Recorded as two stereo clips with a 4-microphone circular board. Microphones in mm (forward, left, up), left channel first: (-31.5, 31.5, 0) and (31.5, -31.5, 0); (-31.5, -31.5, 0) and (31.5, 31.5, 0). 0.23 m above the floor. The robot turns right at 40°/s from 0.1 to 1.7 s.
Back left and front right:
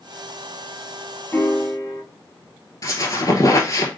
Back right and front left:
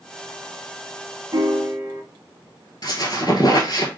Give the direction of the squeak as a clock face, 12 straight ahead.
6 o'clock.